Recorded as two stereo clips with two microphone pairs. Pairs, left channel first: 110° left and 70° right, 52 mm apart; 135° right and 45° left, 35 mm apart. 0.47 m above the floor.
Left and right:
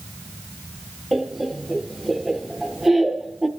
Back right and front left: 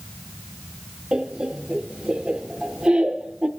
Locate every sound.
1.1 s laughter: 10° left, 0.9 m